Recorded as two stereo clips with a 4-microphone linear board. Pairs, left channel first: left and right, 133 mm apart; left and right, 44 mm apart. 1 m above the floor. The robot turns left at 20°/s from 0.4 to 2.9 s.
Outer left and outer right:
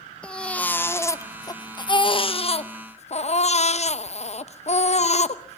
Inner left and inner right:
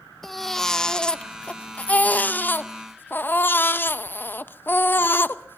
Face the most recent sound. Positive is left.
turn(degrees=120)